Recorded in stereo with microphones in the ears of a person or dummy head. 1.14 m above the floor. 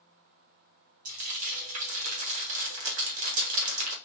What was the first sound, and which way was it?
Frying, 45° right (ahead or behind).